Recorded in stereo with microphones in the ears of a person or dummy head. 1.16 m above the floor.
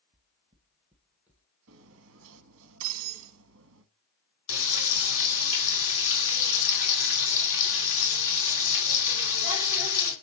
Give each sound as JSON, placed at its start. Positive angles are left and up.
{"t": 0.1, "sound": "footsteps", "side_deg": -30, "distance_m": 1.3}
{"t": 1.7, "sound": "cutlery clinking", "side_deg": -65, "distance_m": 1.0}
{"t": 4.5, "sound": "frying", "side_deg": 85, "distance_m": 3.5}